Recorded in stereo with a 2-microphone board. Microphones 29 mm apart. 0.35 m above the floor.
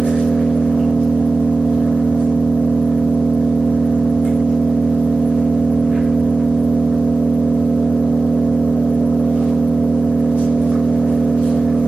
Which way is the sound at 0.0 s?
45° right (ahead or behind).